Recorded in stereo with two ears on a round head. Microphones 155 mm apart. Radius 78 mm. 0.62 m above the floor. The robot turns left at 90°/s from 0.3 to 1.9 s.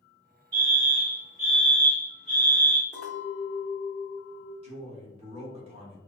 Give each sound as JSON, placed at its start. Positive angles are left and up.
{"t": 0.5, "sound": "a fire alarm", "side_deg": -20, "distance_m": 1.7}
{"t": 2.9, "sound": "a clink", "side_deg": -50, "distance_m": 1.2}
{"t": 4.6, "sound": "a man speaking", "side_deg": -35, "distance_m": 1.0}